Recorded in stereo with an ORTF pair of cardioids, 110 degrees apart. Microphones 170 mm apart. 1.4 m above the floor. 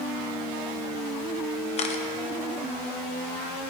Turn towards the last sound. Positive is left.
turn(degrees=40)